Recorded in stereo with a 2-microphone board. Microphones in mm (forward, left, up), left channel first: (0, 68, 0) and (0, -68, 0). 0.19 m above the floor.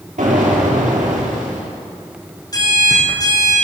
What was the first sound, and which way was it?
An explosion, 75° right (ahead or behind).